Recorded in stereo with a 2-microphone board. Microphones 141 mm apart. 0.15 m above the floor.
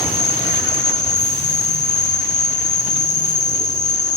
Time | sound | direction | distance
0.0 | an insect | 60° left (ahead or behind) | 0.8 m